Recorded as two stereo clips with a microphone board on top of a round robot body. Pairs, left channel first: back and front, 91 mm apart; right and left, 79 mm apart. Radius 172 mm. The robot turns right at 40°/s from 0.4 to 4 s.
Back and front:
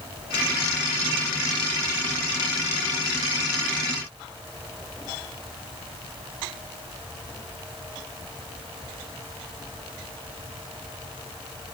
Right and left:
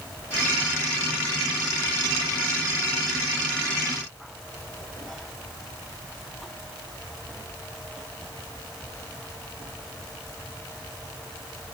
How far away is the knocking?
No knocking in this recording.